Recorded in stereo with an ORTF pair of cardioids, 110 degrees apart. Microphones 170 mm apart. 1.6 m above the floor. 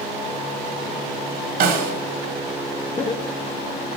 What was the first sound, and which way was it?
A snare drum, 65° right.